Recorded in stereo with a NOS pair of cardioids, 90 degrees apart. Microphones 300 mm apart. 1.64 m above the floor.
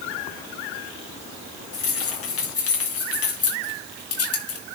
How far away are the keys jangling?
About 5 m.